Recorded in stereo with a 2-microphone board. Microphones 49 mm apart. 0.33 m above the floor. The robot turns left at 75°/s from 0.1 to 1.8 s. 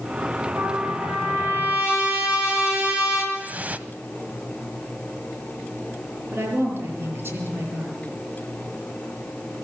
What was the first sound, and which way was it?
A trumpet, 60° right.